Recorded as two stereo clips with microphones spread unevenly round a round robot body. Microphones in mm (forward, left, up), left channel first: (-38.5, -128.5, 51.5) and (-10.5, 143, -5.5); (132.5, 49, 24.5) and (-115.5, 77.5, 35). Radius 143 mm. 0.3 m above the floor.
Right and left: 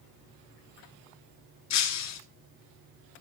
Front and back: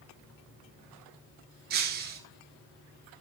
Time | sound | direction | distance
1.7 | breaking glass | 125° right | 1.7 m